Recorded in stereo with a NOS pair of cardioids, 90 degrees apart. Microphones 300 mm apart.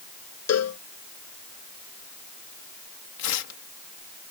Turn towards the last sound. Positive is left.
turn(degrees=70)